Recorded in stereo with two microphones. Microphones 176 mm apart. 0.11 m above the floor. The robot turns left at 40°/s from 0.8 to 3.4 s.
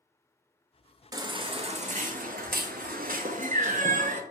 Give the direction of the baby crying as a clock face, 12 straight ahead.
1 o'clock.